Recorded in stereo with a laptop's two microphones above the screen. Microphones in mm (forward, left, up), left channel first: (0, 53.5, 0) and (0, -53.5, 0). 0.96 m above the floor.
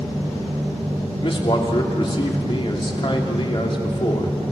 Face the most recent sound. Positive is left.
turn(degrees=50)  # may be behind; listen again after turning